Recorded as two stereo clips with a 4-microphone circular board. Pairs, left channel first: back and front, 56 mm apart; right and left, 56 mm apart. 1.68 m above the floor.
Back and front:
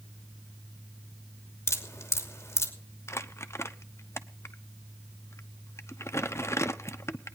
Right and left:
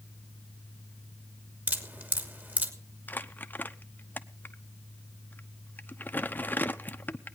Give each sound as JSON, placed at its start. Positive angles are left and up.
{"t": 1.7, "sound": "dripping", "azimuth_deg": 145, "distance_m": 2.5}
{"t": 3.1, "sound": "crumpling", "azimuth_deg": -145, "distance_m": 0.9}